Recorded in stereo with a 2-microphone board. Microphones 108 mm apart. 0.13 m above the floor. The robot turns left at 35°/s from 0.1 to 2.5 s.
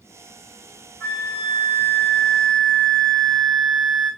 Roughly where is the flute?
Ahead left.